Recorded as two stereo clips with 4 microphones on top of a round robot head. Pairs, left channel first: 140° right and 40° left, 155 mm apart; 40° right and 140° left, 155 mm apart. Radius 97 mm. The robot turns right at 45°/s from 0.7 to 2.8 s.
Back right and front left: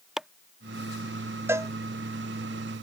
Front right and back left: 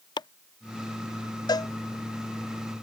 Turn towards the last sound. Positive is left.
turn(degrees=45)